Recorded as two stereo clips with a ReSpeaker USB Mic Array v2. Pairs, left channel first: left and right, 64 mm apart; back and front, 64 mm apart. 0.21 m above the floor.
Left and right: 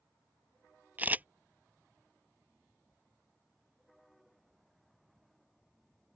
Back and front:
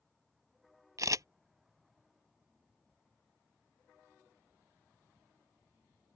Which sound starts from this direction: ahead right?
A camera shutter, at 1.0 s.